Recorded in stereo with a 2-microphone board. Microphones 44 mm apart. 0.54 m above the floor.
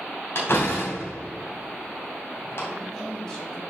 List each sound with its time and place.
0.3 s a door slam: 55° left (ahead or behind), 2.5 m
2.7 s a woman speaking: 15° left (ahead or behind), 4 m